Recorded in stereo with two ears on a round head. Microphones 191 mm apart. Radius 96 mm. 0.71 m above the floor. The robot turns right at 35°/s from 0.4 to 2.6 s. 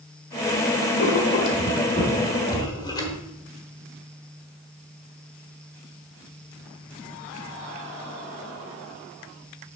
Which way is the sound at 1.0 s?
75° left (ahead or behind).